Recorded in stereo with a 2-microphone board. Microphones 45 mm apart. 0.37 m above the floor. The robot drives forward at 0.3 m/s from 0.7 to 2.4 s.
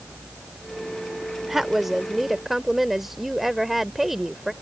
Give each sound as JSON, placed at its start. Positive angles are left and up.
{"t": 1.4, "sound": "a woman speaking", "side_deg": -5}